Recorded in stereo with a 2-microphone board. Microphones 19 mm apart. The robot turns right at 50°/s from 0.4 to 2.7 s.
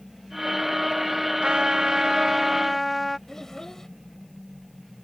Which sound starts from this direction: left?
A child speaking, at 3.3 s.